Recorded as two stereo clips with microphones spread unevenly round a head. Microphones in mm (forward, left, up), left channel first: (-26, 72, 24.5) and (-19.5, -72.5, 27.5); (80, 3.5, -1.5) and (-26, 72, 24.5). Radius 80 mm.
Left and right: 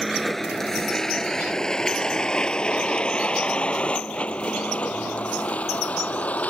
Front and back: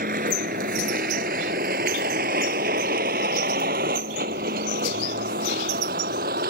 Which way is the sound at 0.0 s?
175° right.